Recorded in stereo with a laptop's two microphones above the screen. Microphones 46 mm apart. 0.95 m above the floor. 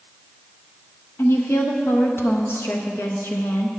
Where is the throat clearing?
I don't hear throat clearing.